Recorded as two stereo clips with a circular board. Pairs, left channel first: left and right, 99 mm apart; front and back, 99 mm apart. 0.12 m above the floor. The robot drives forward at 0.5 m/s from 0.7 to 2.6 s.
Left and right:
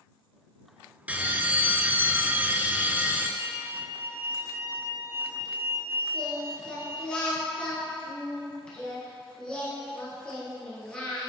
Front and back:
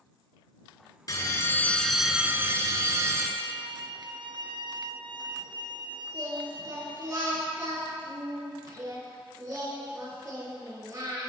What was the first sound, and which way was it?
A bell, 25° right.